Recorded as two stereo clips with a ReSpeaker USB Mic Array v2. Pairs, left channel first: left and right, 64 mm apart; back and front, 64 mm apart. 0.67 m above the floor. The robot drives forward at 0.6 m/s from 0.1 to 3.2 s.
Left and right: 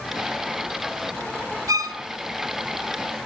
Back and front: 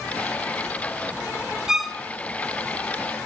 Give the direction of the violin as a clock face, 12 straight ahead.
3 o'clock.